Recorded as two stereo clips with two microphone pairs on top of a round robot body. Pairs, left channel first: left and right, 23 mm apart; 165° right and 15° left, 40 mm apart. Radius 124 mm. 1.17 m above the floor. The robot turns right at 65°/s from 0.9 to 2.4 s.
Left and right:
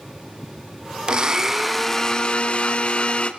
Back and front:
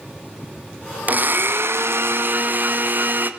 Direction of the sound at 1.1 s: 35° right.